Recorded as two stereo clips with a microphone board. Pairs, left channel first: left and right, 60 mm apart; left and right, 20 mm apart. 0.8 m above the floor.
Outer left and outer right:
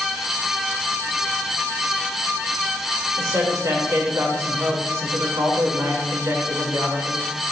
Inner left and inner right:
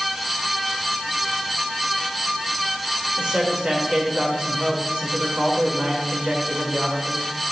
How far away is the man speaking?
About 2.5 m.